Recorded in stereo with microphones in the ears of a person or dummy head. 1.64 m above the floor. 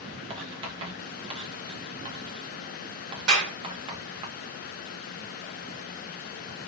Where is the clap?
80° right, 1.4 m.